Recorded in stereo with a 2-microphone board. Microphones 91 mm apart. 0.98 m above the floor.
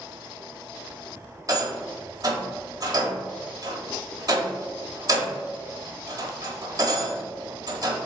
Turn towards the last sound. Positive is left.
turn(degrees=-45)  # may be behind; listen again after turning